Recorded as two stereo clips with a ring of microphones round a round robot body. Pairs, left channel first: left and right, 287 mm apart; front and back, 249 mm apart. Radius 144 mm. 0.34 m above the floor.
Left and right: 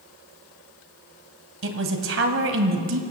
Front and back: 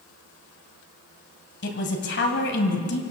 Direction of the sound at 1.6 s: 50° right.